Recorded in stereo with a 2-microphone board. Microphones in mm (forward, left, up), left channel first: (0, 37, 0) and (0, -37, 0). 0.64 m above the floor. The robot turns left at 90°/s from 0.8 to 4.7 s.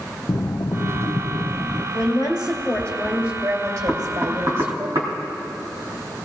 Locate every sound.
0.3 s breathing: 105° left, 0.6 m; by 1.8 s 10° left, 0.6 m
1.9 s a woman speaking: 105° left, 2.5 m; by 4.9 s 140° right, 2.5 m
3.9 s knocking: 5° left (ahead or behind), 3 m; by 5.1 s 70° right (ahead or behind), 3 m